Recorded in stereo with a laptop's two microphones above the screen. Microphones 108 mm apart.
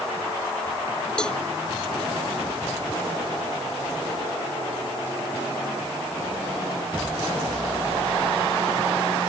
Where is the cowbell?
5° left (ahead or behind).